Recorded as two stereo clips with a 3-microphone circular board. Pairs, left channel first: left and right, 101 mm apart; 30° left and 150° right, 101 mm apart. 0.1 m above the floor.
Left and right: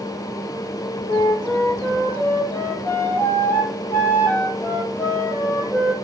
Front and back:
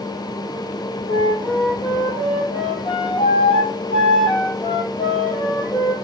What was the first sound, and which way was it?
A flute, 20° left.